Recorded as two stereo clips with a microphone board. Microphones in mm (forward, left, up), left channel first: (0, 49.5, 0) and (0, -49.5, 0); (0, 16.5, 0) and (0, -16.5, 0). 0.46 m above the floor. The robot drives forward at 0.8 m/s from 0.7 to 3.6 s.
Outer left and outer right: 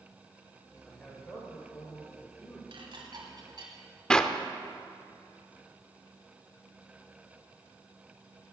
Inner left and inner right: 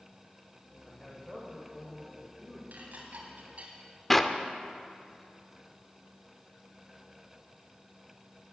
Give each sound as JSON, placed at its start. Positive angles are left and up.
{"t": 0.8, "sound": "a man speaking", "side_deg": 15, "distance_m": 2.5}
{"t": 2.7, "sound": "dishes clattering", "side_deg": -65, "distance_m": 1.8}
{"t": 4.1, "sound": "a clap", "side_deg": 10, "distance_m": 0.6}